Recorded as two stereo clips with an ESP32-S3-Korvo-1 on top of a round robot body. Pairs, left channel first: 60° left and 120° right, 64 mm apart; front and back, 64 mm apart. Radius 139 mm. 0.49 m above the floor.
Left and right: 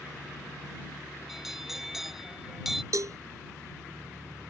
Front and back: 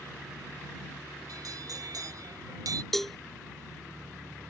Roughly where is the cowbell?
Right.